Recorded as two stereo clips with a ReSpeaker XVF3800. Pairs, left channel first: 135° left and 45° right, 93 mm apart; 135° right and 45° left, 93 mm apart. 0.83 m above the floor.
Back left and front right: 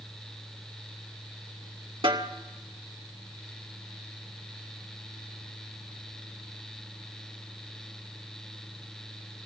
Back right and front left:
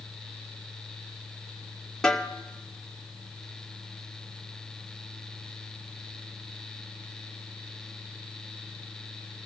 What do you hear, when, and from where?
2.0 s a snare drum: 50° right, 2 m